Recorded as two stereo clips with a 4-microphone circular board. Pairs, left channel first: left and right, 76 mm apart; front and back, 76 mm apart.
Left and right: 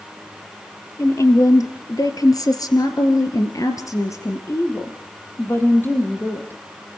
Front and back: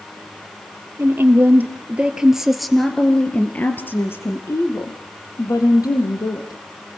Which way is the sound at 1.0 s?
130° left.